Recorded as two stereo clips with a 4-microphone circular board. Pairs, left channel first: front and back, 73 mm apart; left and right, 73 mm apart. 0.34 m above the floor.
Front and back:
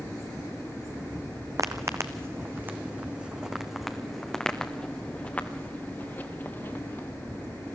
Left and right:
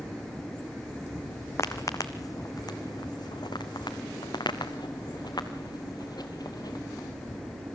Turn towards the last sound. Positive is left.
turn(degrees=55)